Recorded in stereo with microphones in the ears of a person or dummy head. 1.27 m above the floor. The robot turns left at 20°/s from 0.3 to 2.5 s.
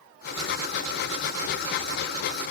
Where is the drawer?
No drawer in this recording.